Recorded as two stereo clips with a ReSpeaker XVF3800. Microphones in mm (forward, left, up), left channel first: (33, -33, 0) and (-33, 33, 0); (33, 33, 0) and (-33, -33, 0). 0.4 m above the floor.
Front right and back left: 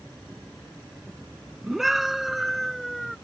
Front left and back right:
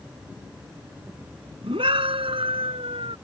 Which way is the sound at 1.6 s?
140° right.